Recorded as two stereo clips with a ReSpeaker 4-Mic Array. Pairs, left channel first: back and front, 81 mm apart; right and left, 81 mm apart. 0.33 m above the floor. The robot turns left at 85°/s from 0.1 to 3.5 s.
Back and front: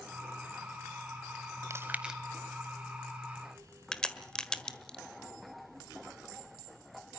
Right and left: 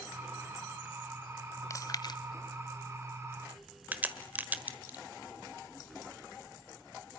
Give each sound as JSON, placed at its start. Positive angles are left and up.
{"t": 1.7, "sound": "chewing", "azimuth_deg": -45, "distance_m": 1.1}
{"t": 3.9, "sound": "a crack", "azimuth_deg": 115, "distance_m": 1.4}